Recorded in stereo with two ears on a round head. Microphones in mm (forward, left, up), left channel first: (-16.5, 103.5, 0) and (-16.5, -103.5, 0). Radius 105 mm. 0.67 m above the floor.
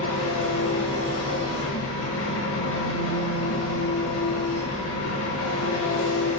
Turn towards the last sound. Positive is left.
turn(degrees=60)  # may be behind; listen again after turning